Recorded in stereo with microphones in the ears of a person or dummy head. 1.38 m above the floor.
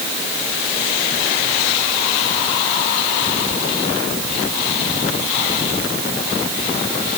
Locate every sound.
Only background noise.